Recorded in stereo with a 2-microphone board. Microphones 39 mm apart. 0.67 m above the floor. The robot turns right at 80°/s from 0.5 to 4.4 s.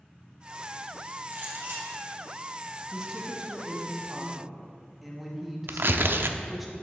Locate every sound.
1.3 s a clink: 125° right, 3 m; by 2.0 s 75° right, 3 m
2.9 s a woman speaking: 15° right (ahead or behind), 1.0 m; by 6.7 s 5° right (ahead or behind), 1.0 m
5.7 s tearing paper: 65° right (ahead or behind), 0.5 m